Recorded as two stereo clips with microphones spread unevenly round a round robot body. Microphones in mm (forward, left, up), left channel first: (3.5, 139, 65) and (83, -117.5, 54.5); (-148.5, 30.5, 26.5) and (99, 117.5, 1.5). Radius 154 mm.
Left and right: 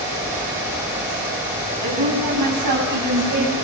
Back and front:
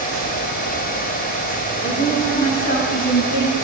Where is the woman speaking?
100° right, 8 m.